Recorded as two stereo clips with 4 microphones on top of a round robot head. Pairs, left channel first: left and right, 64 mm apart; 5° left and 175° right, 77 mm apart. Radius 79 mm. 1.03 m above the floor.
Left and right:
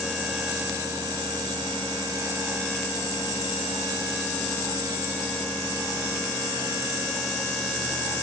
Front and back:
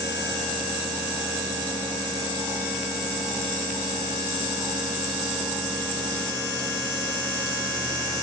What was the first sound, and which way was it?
Only background noise.